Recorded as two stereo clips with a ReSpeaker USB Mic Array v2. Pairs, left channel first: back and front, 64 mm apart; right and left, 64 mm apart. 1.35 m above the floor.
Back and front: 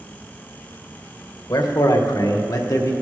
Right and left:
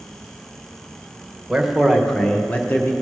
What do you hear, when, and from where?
1.5 s a man speaking: 170° left, 1.2 m; by 2.9 s 145° right, 1.2 m